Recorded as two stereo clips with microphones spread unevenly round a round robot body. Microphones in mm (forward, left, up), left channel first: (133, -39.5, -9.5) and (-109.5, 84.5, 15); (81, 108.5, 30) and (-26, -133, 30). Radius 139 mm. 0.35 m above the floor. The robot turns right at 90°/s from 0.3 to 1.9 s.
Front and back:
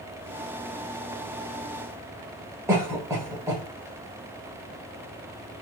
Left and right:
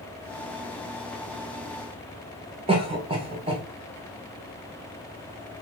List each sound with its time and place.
2.7 s a cough: 130° right, 1.2 m